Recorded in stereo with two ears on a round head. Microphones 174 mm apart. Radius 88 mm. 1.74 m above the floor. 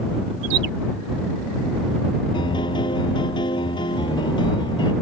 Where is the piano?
25° left (ahead or behind).